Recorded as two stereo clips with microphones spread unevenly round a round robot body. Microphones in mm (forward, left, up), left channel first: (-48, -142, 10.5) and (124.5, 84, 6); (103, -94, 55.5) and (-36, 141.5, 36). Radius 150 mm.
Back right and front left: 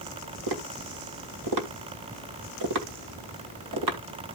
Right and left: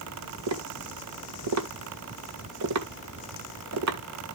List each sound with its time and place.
0.5 s tapping: 90° left, 1.8 m